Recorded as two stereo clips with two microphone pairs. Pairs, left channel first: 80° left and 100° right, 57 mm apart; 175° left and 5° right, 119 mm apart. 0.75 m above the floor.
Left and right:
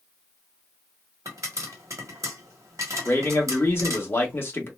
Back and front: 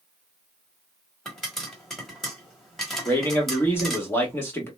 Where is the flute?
No flute in this recording.